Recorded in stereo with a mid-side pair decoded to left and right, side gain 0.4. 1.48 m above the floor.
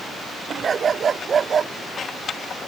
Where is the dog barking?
50° right.